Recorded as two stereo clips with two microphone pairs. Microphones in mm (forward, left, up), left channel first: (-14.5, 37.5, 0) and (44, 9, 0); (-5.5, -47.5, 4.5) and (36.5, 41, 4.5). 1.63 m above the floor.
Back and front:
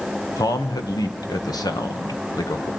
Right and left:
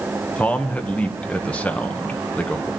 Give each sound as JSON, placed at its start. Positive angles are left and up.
{"t": 0.4, "sound": "a man speaking", "azimuth_deg": 165, "distance_m": 1.9}